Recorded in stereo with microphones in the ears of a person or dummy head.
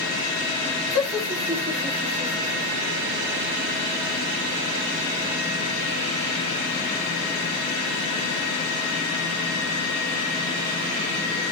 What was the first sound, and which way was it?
Laughter, 25° left (ahead or behind).